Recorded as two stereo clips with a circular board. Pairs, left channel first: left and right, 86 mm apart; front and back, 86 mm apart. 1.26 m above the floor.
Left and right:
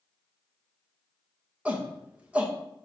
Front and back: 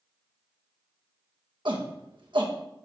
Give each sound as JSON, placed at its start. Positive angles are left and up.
{"t": 1.6, "sound": "a shout", "azimuth_deg": -165, "distance_m": 1.7}